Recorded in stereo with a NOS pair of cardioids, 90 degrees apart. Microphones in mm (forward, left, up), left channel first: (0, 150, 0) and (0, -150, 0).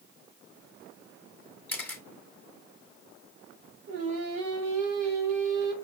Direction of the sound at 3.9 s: 65° right.